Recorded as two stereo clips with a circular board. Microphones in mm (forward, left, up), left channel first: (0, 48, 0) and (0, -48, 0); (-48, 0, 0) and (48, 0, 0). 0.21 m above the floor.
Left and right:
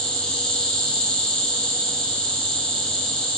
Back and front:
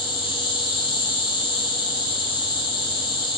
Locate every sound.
0.0 s an insect: 170° left, 1.3 m